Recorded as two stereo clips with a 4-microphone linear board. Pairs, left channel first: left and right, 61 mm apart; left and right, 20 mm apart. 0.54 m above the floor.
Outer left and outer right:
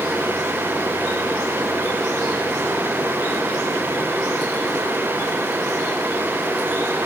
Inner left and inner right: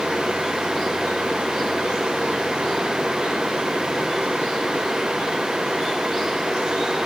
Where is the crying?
No crying in this recording.